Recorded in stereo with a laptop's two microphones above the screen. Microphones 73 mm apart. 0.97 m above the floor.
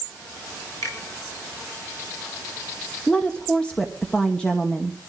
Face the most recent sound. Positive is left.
turn(degrees=15)  # may be behind; listen again after turning